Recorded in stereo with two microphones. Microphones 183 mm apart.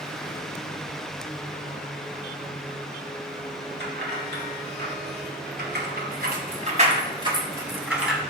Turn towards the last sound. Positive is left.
turn(degrees=0)  # may be behind; listen again after turning